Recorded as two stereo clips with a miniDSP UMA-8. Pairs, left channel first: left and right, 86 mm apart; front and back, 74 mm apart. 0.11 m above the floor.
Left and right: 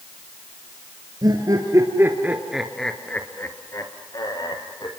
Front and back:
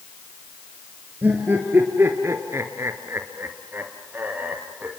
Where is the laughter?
115° right, 3 m; by 4.9 s 115° left, 4 m.